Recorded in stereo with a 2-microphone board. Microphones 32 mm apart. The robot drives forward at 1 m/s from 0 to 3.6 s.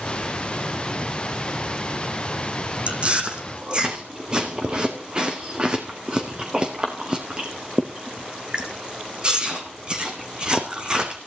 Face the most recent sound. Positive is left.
turn(degrees=-30)  # may be behind; listen again after turning